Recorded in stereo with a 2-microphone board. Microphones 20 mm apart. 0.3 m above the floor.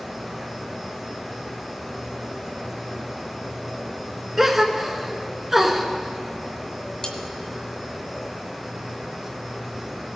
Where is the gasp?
20° right (ahead or behind), 1.0 m.